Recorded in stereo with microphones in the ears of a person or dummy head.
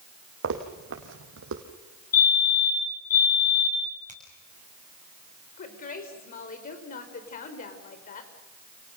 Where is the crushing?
No crushing in this recording.